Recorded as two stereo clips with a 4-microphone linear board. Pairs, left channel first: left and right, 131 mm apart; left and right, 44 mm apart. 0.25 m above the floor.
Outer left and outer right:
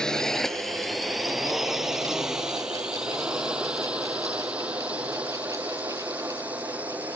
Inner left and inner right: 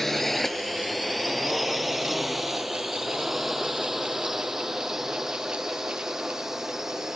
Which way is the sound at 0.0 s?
5° left (ahead or behind).